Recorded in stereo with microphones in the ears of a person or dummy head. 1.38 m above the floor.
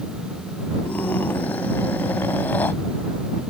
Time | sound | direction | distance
0.8 | a scream | 15° left (ahead or behind) | ?